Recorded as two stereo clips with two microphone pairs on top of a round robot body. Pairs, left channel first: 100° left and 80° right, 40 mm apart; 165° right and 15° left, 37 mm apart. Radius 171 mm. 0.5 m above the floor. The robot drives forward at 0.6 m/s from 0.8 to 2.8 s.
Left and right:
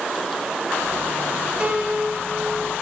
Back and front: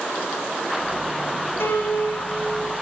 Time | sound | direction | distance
1.6 | a piano | 140° right | 4 m